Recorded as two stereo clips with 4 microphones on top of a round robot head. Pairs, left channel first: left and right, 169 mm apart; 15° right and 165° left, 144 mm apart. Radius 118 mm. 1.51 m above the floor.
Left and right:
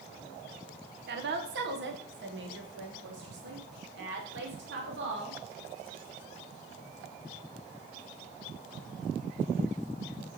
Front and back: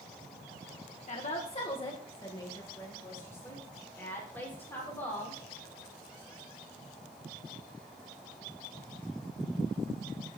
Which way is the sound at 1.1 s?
60° right.